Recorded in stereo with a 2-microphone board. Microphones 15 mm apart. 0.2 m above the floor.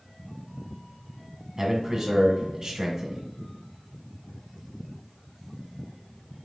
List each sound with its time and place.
1.6 s a man speaking: 35° right (ahead or behind), 1.5 m